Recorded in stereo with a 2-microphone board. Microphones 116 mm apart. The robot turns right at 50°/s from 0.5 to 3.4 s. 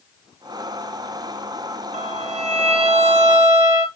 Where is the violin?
100° right, 1.5 m; by 3.9 s 30° right, 1.5 m.